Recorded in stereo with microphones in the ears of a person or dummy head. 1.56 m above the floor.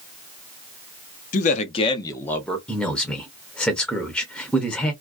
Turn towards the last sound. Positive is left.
turn(degrees=10)  # may be behind; listen again after turning